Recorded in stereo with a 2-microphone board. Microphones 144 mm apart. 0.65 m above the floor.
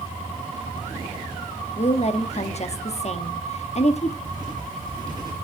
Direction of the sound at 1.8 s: 50° left (ahead or behind).